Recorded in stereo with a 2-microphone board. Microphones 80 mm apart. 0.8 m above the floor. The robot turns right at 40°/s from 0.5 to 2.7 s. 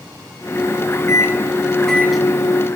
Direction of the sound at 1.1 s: 140° left.